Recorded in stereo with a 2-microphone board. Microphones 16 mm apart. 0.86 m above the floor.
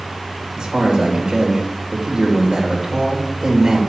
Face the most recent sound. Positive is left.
turn(degrees=-50)  # may be behind; listen again after turning